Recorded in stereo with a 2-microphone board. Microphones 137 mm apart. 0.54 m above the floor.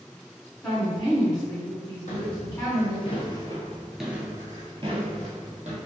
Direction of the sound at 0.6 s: 5° left (ahead or behind).